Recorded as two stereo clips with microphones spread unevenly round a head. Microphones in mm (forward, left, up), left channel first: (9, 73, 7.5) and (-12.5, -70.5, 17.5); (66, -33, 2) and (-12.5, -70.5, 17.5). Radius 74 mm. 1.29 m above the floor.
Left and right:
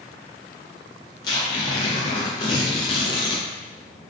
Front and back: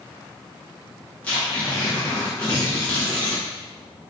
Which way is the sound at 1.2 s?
110° left.